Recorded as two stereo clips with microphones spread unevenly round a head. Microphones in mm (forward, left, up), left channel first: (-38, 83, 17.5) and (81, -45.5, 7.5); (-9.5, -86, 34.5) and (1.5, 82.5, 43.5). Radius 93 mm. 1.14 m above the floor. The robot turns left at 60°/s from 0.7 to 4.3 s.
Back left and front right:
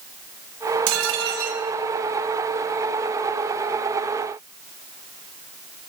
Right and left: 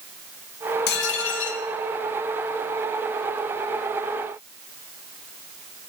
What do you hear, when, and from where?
0.9 s dishes clattering: 60° right, 1.0 m; by 1.6 s 105° right, 1.0 m